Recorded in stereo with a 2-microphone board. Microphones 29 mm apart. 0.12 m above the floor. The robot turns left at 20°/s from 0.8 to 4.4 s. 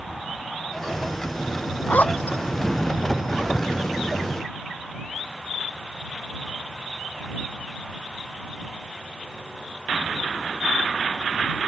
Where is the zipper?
70° left (ahead or behind); by 2.4 s 60° left (ahead or behind).